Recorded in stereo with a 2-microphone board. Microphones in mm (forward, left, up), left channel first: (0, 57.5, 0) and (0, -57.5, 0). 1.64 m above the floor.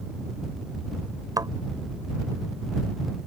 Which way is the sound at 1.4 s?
35° right (ahead or behind).